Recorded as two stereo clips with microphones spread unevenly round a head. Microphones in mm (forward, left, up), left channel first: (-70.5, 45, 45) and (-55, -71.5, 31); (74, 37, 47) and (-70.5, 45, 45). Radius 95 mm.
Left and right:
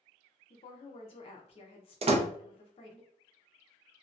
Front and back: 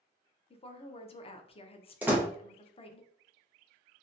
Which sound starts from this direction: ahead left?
A woman speaking, at 0.5 s.